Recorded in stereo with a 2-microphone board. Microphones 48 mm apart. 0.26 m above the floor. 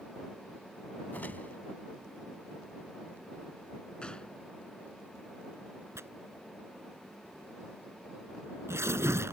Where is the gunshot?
20° left (ahead or behind).